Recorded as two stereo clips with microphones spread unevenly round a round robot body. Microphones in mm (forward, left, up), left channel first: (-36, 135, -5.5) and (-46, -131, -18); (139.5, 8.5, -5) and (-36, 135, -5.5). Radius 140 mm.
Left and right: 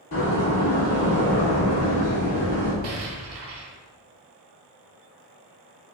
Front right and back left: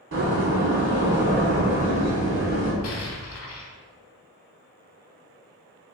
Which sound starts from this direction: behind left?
A door slam, at 0.1 s.